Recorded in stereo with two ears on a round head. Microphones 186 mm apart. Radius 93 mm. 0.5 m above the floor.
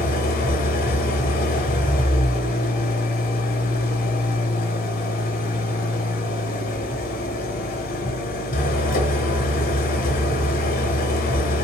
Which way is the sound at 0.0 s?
45° left (ahead or behind).